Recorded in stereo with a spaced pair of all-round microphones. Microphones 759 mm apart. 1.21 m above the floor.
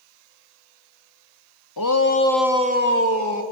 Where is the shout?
30° left (ahead or behind), 1.3 m; by 3.4 s 25° right (ahead or behind), 2.5 m.